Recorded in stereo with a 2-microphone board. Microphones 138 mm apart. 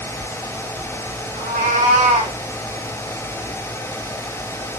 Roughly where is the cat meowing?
Right.